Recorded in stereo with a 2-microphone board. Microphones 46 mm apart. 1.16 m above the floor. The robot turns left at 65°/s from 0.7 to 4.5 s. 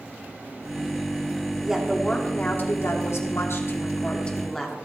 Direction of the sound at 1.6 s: 165° right.